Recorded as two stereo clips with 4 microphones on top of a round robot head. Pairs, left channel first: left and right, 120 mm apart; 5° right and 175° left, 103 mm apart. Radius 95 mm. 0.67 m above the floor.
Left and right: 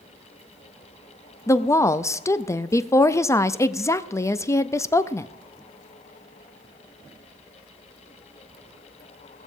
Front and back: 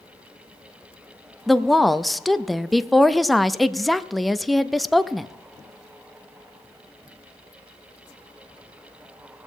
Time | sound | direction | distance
1.5 | a woman speaking | 85° left | 0.5 m